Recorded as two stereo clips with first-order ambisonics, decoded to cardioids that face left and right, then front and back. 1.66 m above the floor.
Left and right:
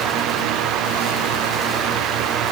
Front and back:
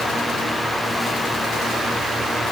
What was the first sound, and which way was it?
Only background noise.